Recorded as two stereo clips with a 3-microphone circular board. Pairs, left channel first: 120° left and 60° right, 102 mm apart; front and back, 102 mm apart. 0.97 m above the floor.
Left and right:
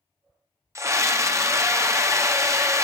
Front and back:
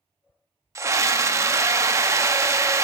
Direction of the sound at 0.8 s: 120° right.